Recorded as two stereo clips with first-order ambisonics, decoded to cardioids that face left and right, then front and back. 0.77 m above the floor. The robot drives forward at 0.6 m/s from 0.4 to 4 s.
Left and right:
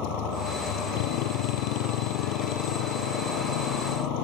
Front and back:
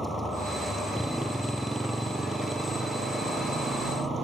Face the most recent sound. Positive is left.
turn(degrees=100)